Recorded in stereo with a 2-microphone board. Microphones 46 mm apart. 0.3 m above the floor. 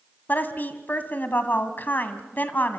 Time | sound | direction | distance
0.3 | a woman speaking | 45° left (ahead or behind) | 2.0 m